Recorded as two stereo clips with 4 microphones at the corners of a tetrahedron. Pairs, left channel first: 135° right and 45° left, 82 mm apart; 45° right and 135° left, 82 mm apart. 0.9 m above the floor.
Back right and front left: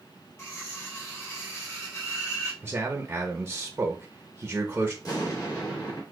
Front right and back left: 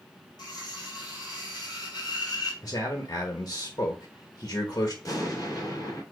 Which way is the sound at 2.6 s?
20° right.